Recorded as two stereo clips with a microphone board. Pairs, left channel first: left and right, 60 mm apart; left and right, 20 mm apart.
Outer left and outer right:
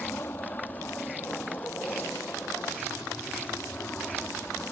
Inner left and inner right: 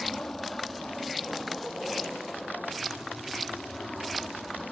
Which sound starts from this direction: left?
An aircraft, at 0.0 s.